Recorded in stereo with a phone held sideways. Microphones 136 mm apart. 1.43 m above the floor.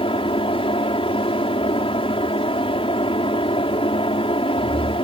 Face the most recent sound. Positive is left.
turn(degrees=45)  # may be behind; listen again after turning